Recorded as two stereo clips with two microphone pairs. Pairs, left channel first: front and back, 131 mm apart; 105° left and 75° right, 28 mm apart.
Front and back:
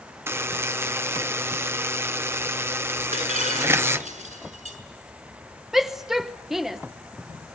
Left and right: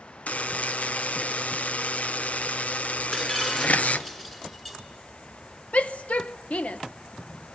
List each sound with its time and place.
0.3 s a buzzer: 115° left, 0.7 m
3.1 s breaking glass: straight behind, 6.5 m
5.7 s a shout: 95° left, 0.8 m